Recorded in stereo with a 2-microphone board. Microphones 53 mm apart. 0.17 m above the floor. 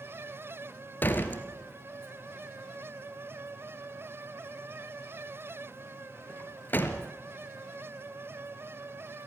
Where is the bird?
No bird in this recording.